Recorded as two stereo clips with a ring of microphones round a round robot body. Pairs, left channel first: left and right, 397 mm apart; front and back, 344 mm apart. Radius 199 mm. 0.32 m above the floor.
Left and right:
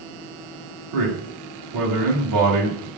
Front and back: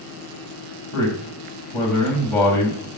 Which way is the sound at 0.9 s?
85° right.